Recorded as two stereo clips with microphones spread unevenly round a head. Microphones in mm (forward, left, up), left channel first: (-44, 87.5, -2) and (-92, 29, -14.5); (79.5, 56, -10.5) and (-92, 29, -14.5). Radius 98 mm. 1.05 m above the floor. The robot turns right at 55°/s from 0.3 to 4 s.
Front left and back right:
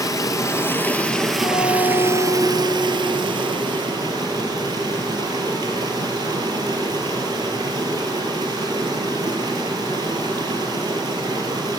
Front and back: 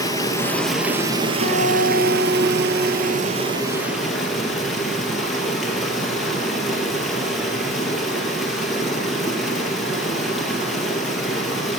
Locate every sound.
0.0 s running water: 75° left, 1.9 m; by 11.8 s 80° right, 1.9 m
1.4 s a guitar: 10° right, 3.5 m; by 3.5 s 110° left, 3.5 m